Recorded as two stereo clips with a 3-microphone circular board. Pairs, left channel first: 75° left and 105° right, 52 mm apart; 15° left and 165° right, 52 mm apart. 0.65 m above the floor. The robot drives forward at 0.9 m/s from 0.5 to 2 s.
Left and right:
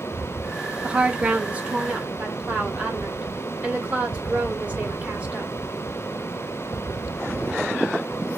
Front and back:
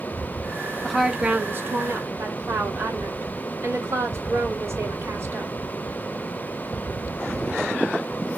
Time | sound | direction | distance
0.8 | a woman speaking | 60° right | 0.7 m